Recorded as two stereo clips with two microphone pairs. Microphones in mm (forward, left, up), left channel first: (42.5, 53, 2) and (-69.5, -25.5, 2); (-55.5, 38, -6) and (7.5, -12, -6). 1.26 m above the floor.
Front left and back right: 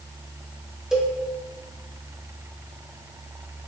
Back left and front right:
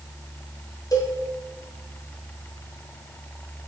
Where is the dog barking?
I don't hear a dog barking.